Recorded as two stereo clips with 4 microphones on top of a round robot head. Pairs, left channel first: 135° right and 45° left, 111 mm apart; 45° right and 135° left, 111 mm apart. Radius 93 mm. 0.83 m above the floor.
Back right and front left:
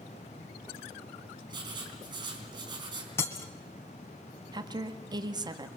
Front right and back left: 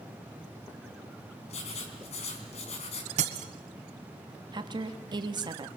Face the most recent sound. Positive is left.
turn(degrees=90)